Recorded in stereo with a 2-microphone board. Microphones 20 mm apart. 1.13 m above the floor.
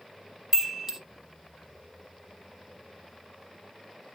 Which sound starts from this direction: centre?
A chime, at 0.5 s.